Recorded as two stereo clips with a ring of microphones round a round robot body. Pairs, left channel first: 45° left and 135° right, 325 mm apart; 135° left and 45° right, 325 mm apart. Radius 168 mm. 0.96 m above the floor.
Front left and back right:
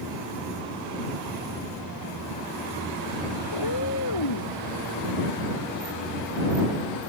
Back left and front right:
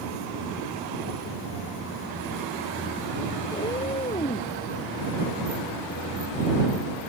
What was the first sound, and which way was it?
A cat meowing, 60° left.